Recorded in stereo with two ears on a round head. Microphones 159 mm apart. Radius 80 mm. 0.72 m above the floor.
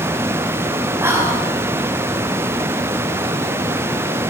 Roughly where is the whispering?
Centre.